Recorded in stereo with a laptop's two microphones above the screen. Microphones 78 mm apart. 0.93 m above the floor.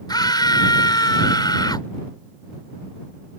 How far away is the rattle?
No rattle in this recording.